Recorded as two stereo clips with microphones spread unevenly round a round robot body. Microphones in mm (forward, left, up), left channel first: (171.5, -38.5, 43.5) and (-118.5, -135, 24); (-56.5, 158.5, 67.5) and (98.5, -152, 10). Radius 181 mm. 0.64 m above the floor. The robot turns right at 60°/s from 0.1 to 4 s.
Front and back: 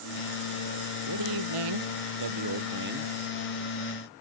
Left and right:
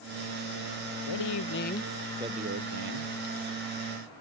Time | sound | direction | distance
1.1 | a man speaking | 145° left | ?